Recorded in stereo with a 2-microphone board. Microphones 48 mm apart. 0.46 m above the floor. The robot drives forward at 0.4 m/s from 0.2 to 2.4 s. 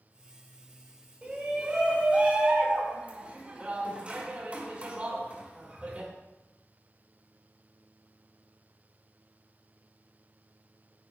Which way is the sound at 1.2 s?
25° right (ahead or behind).